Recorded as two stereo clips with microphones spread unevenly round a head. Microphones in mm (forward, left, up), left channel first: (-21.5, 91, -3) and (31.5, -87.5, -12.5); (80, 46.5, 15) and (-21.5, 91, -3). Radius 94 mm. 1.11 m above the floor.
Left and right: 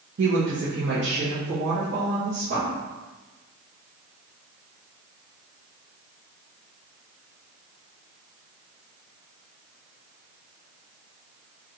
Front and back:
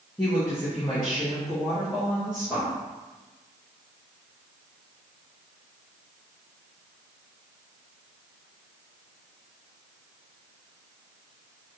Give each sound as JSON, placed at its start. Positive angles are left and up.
{"t": 0.2, "sound": "a woman speaking", "azimuth_deg": -100, "distance_m": 0.7}